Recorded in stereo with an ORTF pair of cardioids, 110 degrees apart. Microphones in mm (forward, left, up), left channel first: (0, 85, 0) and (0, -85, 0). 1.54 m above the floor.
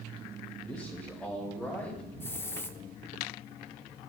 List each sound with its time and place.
0.6 s a man speaking: 5° left, 2 m
2.2 s a hiss: 15° left, 0.6 m